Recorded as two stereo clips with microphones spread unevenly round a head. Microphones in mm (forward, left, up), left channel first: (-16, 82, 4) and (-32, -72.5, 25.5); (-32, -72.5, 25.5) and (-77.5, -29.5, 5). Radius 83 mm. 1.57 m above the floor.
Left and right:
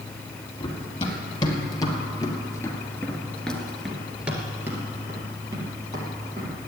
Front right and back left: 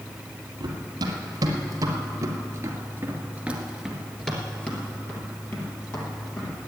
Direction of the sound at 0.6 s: 150° left.